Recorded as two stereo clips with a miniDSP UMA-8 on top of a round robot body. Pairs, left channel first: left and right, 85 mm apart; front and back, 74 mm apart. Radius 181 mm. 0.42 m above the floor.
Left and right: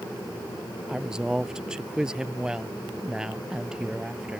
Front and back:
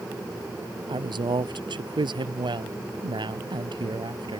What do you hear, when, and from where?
0.9 s a woman speaking: 170° right